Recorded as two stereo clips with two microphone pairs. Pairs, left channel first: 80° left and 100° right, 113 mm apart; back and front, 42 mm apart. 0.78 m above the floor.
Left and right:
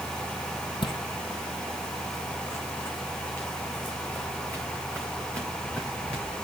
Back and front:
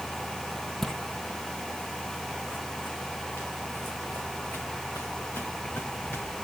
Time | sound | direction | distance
0.8 | footsteps | 100° left | 1.2 m